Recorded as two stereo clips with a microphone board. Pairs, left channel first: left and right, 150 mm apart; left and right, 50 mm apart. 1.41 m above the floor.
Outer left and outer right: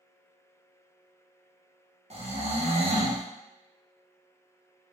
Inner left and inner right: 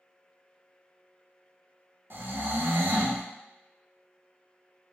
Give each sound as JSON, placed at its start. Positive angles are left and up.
{"t": 2.1, "sound": "snoring", "side_deg": -50, "distance_m": 0.7}